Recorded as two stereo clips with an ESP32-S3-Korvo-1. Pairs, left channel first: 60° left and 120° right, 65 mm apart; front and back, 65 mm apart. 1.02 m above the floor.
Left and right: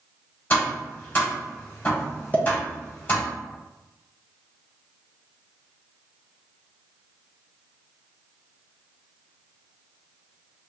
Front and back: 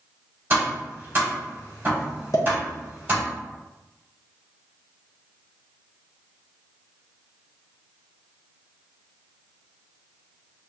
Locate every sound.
0.5 s tapping: 120° left, 1.9 m
2.3 s a pop: straight ahead, 1.2 m